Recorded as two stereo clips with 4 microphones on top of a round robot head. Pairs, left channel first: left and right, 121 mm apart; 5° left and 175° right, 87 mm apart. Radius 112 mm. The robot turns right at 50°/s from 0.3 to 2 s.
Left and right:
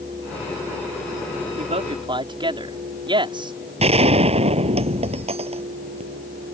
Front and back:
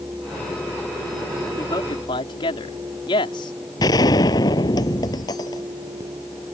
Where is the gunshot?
50° right.